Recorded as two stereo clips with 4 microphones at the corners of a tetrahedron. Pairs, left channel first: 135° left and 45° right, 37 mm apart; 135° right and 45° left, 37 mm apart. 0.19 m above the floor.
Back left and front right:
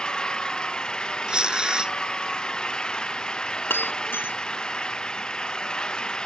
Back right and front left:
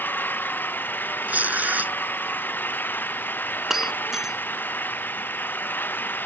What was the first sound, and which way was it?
An engine running, 160° right.